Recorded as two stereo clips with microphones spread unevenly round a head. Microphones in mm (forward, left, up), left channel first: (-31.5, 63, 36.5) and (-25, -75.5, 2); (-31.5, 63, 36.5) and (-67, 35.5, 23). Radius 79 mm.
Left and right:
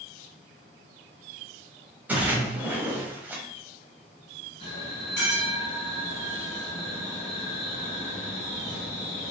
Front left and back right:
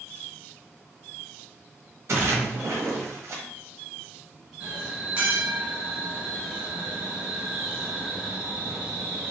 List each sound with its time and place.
2.1 s a splash: 170° right, 0.8 m
4.6 s a bell: 150° left, 1.7 m